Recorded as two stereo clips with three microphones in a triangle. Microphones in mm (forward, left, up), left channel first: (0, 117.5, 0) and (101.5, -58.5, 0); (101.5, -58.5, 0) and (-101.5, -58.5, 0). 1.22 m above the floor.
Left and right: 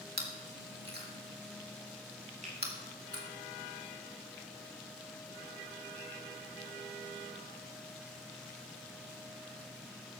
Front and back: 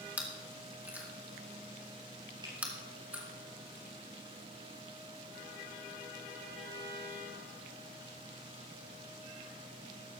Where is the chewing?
100° right, 2 m.